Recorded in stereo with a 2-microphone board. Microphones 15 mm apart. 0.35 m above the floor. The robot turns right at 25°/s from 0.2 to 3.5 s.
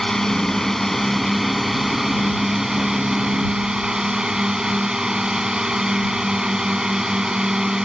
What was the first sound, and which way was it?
A drone, 140° left.